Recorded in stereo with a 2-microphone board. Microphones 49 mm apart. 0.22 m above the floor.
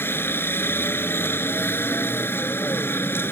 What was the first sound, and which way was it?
A helicopter, 45° left (ahead or behind).